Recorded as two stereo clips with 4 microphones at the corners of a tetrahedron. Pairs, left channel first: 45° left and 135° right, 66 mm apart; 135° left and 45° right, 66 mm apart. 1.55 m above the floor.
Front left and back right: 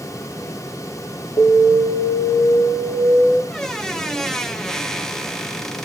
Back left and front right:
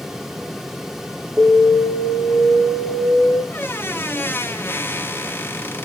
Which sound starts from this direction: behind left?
A squeak, at 3.5 s.